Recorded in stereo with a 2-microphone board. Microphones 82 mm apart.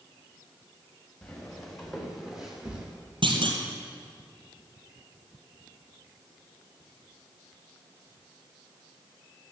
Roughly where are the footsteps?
Centre.